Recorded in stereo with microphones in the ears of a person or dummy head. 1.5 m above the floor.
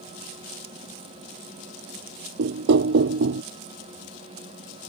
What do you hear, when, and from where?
2.4 s knocking: 60° right (ahead or behind)